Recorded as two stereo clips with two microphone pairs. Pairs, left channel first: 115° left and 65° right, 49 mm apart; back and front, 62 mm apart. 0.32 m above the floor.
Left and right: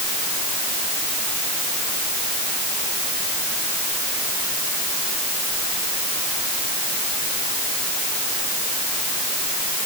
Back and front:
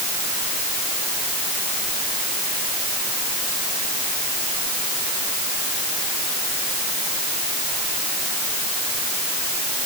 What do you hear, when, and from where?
Only background noise.